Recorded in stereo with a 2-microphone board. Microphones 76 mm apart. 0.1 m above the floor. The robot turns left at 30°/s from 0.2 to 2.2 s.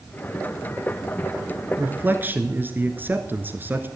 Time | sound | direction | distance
1.8 | a man speaking | 25° right (ahead or behind) | 1.3 m